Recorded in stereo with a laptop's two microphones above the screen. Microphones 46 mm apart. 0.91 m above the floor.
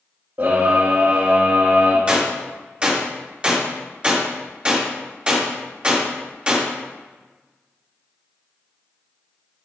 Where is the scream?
55° right (ahead or behind), 2.5 m.